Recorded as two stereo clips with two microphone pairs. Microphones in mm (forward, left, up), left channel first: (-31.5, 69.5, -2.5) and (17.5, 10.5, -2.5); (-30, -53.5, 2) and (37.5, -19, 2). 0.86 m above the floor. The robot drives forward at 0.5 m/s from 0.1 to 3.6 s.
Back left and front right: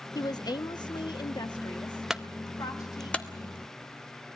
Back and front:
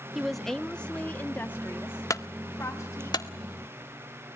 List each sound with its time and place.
0.1 s a woman speaking: 110° left, 0.7 m; by 3.1 s 160° left, 1.9 m
2.1 s a clunk: 135° right, 0.7 m; by 3.3 s 160° right, 1.1 m